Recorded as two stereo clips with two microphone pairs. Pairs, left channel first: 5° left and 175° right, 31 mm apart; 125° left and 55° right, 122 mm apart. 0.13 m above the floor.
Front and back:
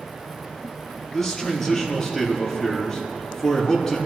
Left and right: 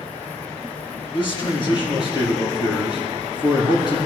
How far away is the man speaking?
About 4.5 m.